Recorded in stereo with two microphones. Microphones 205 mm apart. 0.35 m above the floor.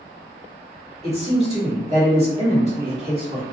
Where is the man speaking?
30° right (ahead or behind), 1.3 m.